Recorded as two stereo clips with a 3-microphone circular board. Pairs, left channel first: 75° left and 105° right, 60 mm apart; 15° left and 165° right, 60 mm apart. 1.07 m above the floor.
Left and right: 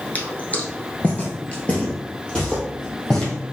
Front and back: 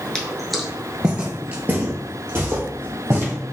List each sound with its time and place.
0.1 s footsteps: 75° left, 1.1 m; by 3.3 s 150° left, 2.5 m